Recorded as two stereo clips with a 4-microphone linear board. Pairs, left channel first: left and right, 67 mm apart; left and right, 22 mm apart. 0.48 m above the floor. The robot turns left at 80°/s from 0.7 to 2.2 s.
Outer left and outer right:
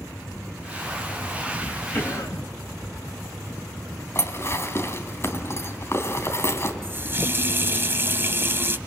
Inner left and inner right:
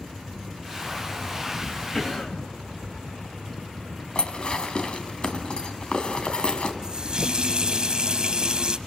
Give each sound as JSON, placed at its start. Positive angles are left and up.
{"t": 1.9, "sound": "a cough", "side_deg": 30, "distance_m": 3.5}
{"t": 4.2, "sound": "dishes clattering", "side_deg": 40, "distance_m": 2.5}
{"t": 6.8, "sound": "a running tap", "side_deg": -35, "distance_m": 2.0}